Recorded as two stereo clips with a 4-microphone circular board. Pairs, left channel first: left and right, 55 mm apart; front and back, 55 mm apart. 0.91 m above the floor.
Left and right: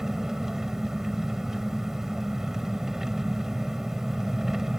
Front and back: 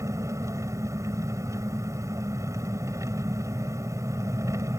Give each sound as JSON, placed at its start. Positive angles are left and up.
{"t": 0.0, "sound": "an engine running", "azimuth_deg": -170}